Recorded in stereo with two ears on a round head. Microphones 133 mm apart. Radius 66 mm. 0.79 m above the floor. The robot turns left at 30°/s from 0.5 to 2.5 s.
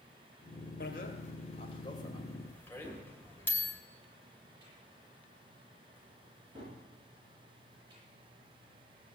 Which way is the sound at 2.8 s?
30° right (ahead or behind).